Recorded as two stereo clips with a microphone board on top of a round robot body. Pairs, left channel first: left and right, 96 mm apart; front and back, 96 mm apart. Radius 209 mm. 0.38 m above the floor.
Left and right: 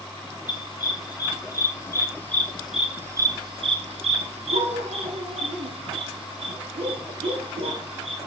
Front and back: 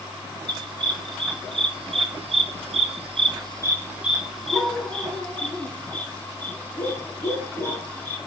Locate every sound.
0.5 s a dog barking: 140° left, 2.0 m; by 8.2 s 65° right, 3.5 m